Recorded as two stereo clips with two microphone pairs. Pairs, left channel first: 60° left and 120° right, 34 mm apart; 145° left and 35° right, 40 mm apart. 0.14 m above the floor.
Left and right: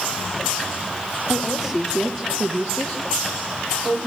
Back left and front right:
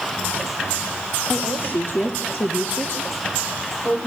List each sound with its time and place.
1.3 s a woman speaking: 160° left, 3 m; by 4.1 s 95° left, 4.5 m